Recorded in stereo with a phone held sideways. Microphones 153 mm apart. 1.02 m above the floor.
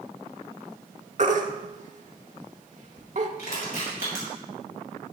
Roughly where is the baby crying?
Right.